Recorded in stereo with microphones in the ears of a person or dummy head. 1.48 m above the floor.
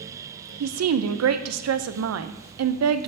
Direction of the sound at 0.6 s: 85° right.